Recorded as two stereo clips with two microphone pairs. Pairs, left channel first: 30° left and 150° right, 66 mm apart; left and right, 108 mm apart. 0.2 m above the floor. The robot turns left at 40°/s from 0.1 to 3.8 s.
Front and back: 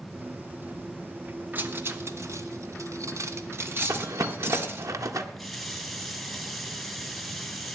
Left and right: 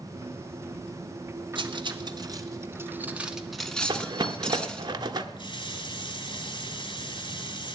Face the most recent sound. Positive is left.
turn(degrees=120)